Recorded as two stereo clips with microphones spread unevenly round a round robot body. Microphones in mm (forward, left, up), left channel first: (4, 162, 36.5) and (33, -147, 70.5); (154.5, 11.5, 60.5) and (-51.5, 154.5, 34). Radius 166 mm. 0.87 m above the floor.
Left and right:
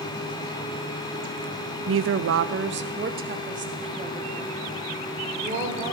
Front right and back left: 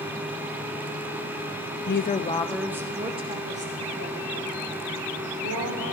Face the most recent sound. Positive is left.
turn(degrees=-160)